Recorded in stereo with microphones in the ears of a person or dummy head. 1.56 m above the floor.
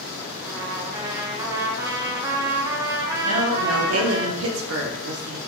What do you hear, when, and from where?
0.4 s a trumpet: 15° right (ahead or behind), 0.5 m
3.2 s a woman speaking: 80° right, 0.6 m